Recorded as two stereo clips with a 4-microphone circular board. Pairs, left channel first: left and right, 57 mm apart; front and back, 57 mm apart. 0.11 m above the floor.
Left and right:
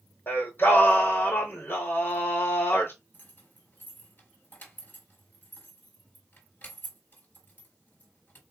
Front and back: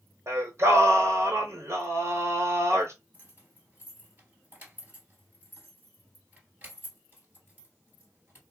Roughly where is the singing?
Behind left.